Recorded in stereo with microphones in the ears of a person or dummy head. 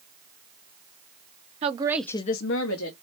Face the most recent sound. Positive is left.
turn(degrees=80)